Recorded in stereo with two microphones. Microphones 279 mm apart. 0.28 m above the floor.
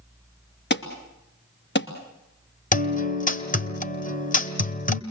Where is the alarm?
40° left (ahead or behind), 2.5 m.